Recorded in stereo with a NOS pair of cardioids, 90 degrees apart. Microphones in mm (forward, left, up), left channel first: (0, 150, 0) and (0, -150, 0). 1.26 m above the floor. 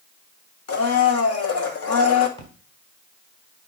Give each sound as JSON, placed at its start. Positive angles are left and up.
{"t": 0.7, "sound": "a blender", "azimuth_deg": 50, "distance_m": 1.7}
{"t": 2.4, "sound": "a splash", "azimuth_deg": 15, "distance_m": 4.0}